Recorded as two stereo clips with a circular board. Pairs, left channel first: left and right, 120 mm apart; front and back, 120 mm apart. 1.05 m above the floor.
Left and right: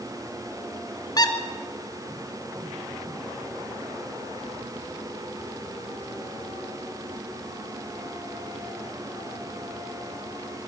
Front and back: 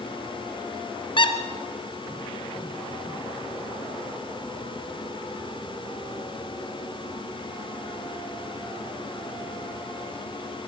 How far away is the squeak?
About 1.9 m.